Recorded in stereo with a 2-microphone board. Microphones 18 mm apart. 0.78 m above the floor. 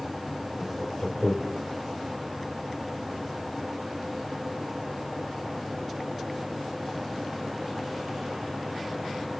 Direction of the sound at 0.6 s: 50° left (ahead or behind).